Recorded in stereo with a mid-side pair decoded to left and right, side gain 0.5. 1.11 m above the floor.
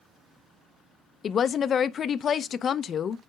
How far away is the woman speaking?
About 0.5 m.